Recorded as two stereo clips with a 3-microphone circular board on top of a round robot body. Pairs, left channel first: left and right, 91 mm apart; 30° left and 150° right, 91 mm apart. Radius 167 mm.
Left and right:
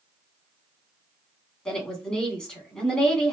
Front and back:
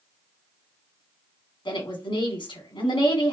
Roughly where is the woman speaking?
Ahead.